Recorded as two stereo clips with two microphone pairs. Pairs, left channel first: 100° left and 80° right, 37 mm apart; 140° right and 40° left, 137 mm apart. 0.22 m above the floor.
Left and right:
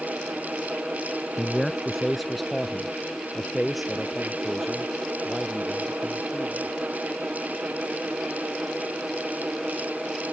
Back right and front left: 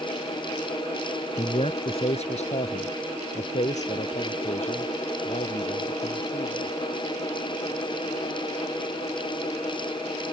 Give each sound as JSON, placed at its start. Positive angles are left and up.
{"t": 1.4, "sound": "a man speaking", "azimuth_deg": -175}